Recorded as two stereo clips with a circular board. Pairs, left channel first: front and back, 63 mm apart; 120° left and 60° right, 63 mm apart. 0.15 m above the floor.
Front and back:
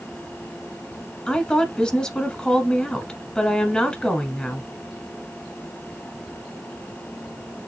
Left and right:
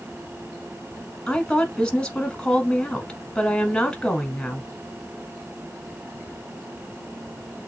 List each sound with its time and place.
1.3 s a woman speaking: 60° left, 1.2 m